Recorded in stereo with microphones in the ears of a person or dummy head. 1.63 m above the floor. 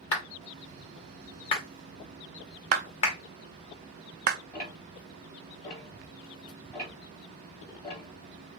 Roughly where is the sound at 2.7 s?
Right.